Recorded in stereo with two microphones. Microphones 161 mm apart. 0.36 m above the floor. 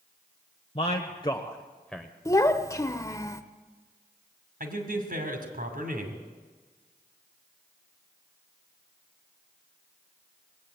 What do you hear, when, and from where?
0.8 s a man speaking: 40° left (ahead or behind), 1.0 m; by 2.1 s centre (ahead or behind), 1.0 m
2.2 s a child speaking: 20° left (ahead or behind), 0.7 m
4.6 s a man speaking: 65° right (ahead or behind), 2.5 m